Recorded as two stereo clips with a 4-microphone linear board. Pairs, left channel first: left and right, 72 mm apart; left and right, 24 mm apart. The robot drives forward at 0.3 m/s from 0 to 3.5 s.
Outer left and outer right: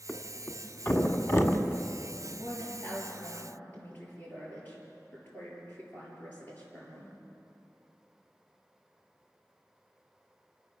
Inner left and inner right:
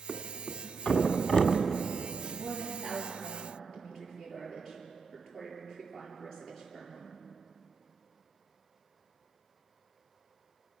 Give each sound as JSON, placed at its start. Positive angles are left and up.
{"t": 0.1, "sound": "a thud", "side_deg": 30, "distance_m": 1.8}
{"t": 2.3, "sound": "a woman speaking", "side_deg": 25, "distance_m": 7.5}